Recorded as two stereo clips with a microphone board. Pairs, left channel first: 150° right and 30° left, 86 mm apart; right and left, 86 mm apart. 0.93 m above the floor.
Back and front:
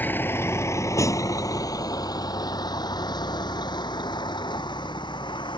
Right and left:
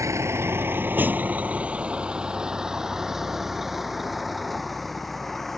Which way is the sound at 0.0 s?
140° left.